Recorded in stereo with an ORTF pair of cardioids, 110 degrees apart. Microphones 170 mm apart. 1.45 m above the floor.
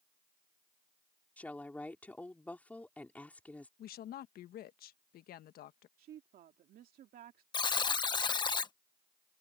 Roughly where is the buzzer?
Ahead left.